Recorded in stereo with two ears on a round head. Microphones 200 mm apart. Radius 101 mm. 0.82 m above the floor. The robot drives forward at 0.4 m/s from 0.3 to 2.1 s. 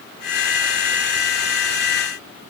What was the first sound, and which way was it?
Only background noise.